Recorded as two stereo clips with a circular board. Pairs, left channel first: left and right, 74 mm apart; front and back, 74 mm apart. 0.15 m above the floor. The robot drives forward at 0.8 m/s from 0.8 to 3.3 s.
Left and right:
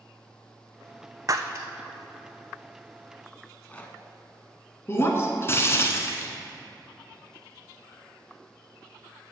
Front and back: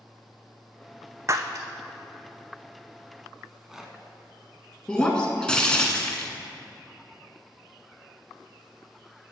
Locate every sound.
1.3 s breaking glass: 130° right, 0.7 m; by 1.7 s 145° right, 0.9 m
3.4 s a rattle: 110° left, 0.9 m
4.9 s breaking glass: 70° left, 1.1 m